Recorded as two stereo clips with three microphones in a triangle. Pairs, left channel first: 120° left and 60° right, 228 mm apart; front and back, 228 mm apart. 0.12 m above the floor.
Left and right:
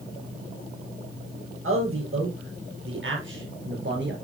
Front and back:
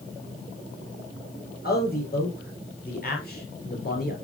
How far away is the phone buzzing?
I don't hear a phone buzzing.